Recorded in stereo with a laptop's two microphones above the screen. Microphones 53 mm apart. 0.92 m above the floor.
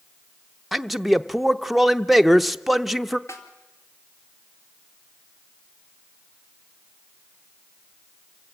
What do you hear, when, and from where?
0.7 s a man speaking: centre (ahead or behind), 0.8 m
3.3 s a snare drum: 60° left (ahead or behind), 2.5 m